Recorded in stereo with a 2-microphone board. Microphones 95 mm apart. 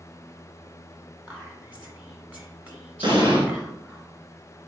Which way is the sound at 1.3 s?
15° right (ahead or behind).